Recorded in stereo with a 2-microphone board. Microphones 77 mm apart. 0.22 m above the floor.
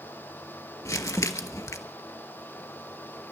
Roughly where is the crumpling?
Left.